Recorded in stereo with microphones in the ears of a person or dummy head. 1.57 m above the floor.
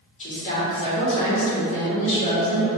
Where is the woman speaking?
35° left (ahead or behind), 1.3 m.